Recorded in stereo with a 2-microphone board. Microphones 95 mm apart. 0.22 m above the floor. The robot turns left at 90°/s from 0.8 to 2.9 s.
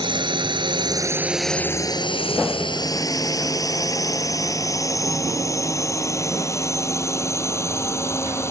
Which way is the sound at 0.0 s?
55° right (ahead or behind).